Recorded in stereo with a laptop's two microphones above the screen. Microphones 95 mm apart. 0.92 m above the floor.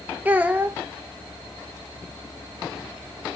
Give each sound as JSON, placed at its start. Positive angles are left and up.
{"t": 0.2, "sound": "a child speaking", "side_deg": -20, "distance_m": 0.6}